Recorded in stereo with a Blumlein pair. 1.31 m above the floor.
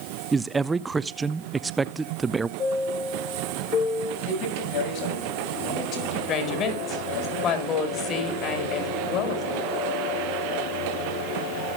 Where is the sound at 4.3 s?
45° left, 6.5 m.